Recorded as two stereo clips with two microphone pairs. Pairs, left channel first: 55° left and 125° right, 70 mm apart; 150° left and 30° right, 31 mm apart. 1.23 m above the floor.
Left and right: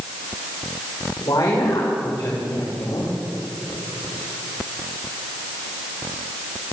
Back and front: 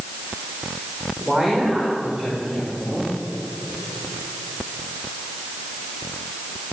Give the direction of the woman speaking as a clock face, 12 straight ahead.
11 o'clock.